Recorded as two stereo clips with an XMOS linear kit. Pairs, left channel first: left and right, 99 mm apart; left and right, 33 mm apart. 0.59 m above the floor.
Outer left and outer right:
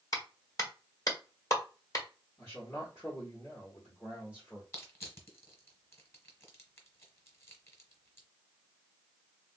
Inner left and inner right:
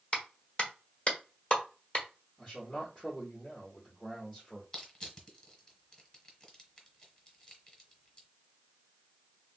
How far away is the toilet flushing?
I don't hear a toilet flushing.